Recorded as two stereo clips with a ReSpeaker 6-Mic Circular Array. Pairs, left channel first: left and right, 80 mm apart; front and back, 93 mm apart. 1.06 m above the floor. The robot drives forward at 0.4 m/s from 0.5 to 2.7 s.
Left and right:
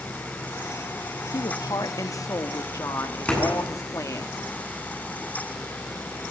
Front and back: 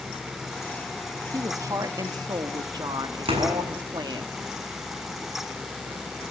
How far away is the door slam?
About 9 m.